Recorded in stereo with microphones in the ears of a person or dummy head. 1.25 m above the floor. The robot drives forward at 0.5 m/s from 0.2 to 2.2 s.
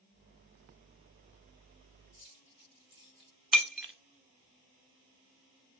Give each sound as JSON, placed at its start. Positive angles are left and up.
{"t": 2.2, "sound": "keys jangling", "side_deg": 30, "distance_m": 2.5}
{"t": 3.5, "sound": "breaking glass", "side_deg": 0, "distance_m": 0.7}